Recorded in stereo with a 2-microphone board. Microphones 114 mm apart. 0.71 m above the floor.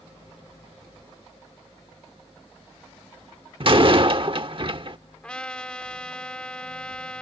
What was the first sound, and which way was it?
A door slam, 50° right (ahead or behind).